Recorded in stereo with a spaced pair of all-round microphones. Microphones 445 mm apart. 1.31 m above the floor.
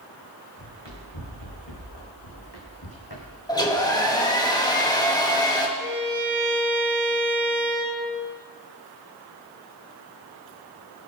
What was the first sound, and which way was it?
Running footsteps, 75° left (ahead or behind).